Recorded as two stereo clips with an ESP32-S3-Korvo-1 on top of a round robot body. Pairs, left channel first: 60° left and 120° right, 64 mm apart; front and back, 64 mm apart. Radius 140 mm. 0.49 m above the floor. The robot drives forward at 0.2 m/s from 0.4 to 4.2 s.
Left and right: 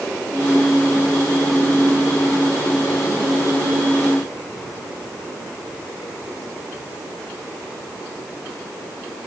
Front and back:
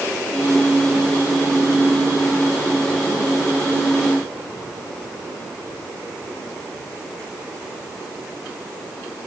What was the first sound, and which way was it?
Only background noise.